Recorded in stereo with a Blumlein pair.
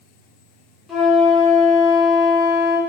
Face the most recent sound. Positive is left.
turn(degrees=20)